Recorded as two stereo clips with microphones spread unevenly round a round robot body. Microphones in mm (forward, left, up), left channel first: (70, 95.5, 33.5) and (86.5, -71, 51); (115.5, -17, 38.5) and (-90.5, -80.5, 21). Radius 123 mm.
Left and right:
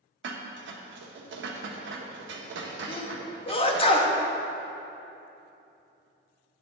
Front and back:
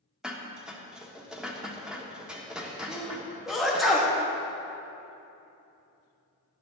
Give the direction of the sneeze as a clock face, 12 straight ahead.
8 o'clock.